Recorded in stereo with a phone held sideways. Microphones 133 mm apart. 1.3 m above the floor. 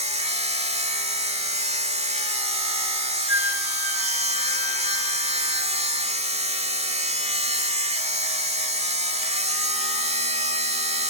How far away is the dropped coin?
I don't hear a dropped coin.